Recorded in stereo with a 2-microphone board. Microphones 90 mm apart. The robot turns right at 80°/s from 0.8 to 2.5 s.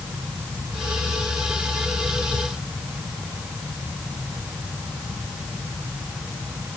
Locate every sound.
Only background noise.